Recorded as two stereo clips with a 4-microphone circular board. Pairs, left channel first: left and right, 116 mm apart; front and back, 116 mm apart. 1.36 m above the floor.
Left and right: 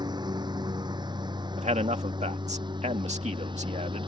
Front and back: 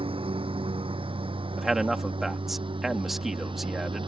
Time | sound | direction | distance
0.0 | a lawn mower | 140° right | ?
1.6 | a man speaking | 90° right | ?